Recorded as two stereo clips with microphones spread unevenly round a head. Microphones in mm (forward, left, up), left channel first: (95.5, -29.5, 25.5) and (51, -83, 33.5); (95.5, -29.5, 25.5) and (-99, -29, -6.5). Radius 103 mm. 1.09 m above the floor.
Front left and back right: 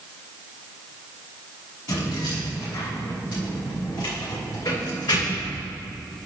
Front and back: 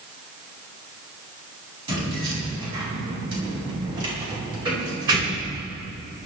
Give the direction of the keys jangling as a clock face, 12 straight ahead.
8 o'clock.